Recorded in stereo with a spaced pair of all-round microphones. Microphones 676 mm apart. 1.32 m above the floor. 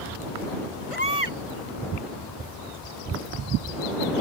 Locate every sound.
0.9 s a baby crying: 50° left (ahead or behind)